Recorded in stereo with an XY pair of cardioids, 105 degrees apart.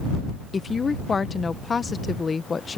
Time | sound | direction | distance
0.5 | a woman speaking | 35° left | ?